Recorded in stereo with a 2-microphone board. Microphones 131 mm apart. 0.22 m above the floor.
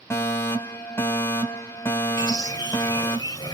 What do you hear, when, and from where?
0.1 s a fire alarm: 20° left (ahead or behind), 2.5 m
2.2 s a bird: 30° left (ahead or behind), 1.6 m